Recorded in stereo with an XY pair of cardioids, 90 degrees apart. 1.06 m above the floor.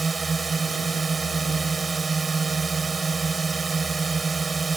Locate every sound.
0.0 s a drone: 35° right